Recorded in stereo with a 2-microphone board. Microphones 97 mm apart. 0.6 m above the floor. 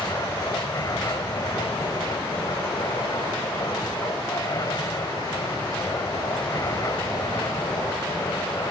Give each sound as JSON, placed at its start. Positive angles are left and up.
{"t": 0.0, "sound": "an aircraft", "side_deg": 40}